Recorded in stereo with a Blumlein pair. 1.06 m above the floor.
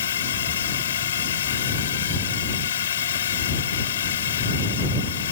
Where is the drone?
65° left.